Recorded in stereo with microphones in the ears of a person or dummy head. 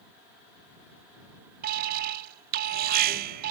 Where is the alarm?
55° right (ahead or behind).